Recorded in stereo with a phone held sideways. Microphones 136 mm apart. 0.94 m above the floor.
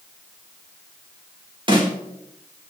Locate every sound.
1.7 s a snare drum: 40° right (ahead or behind), 4 m